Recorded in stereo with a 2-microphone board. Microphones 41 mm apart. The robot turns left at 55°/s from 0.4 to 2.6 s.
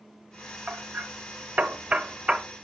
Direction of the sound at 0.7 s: 45° right (ahead or behind).